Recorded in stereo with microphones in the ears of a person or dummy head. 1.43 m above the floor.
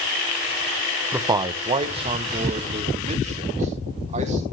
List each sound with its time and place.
1.1 s a man speaking: 5° right (ahead or behind), 0.5 m; by 4.5 s 30° right (ahead or behind), 3.5 m